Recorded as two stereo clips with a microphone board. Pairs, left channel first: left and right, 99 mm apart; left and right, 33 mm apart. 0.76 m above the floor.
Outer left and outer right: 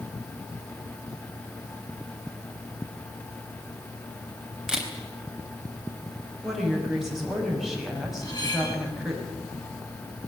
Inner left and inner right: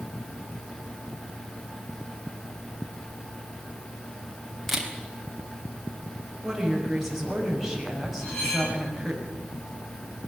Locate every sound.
4.7 s a camera shutter: 5° right (ahead or behind), 4 m
6.4 s a woman speaking: 5° right (ahead or behind), 6 m
8.2 s cutlery clinking: 40° left (ahead or behind), 9.5 m